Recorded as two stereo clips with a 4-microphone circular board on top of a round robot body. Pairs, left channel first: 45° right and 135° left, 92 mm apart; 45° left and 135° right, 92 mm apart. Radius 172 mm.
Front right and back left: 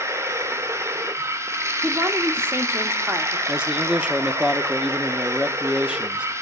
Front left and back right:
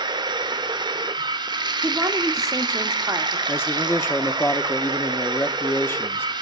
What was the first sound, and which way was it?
Running water, 170° right.